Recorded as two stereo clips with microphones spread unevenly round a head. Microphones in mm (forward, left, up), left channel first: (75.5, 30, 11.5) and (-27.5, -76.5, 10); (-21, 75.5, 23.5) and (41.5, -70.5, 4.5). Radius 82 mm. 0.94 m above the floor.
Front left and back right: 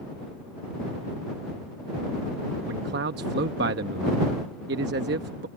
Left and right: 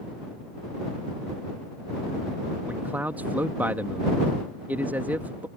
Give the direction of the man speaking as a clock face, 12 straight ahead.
5 o'clock.